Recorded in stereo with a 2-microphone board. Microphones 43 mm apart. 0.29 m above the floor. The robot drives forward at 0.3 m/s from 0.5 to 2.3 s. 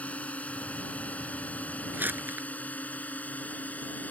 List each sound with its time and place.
0.0 s a drone: 30° left (ahead or behind); by 4.1 s 40° left (ahead or behind)
1.9 s crumpling: 50° right (ahead or behind)